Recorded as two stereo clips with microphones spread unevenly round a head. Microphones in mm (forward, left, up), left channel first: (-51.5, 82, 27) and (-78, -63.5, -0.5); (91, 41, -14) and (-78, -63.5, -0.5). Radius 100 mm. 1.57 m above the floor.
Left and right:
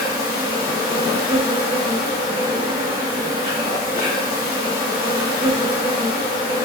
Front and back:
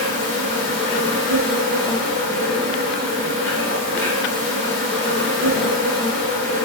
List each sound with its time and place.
0.0 s an insect: 25° left, 1.7 m